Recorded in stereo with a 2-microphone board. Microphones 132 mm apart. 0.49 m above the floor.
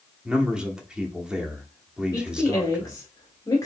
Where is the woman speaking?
25° left (ahead or behind), 1.0 m.